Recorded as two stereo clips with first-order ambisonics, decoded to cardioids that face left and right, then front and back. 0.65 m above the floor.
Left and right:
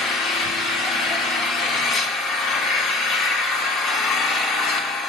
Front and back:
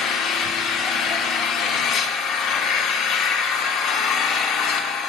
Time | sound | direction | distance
0.0 | an engine running | 40° left | 0.8 m